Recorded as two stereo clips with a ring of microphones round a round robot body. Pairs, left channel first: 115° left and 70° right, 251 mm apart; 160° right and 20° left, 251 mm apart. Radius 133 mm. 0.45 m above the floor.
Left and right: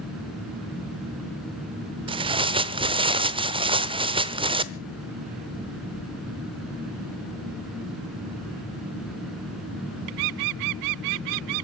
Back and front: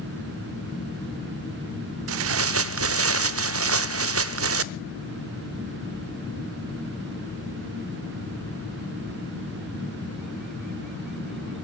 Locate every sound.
2.1 s tearing paper: straight ahead, 0.9 m